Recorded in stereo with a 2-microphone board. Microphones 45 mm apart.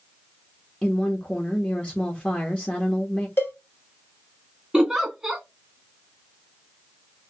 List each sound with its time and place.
0.8 s a woman speaking: 30° left (ahead or behind), 0.8 m
3.4 s a cowbell: 55° left (ahead or behind), 1.2 m
4.7 s a giggle: 15° right (ahead or behind), 1.6 m